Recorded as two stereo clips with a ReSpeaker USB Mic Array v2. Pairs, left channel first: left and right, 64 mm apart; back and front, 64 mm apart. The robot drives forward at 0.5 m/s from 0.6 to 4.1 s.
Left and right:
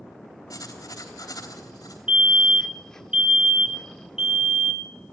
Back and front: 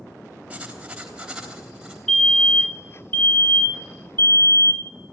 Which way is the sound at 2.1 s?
110° right.